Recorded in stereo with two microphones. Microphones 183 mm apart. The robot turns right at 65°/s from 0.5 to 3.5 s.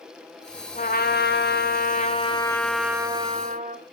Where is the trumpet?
50° left, 2 m; by 3.8 s 130° right, 2 m.